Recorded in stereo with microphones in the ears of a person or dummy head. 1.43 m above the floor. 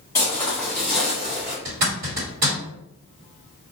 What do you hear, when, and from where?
0.1 s footsteps: 15° left (ahead or behind), 1.7 m; by 1.6 s 10° right (ahead or behind), 1.5 m
1.6 s a zipper: 35° right (ahead or behind), 1.4 m